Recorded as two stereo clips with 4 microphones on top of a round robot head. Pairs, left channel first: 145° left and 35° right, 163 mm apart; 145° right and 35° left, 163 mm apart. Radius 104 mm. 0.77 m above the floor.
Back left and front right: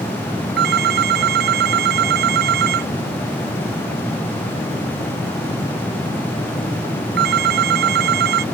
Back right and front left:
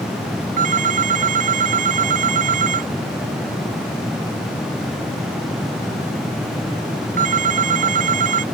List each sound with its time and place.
0.6 s a phone ringing: 10° right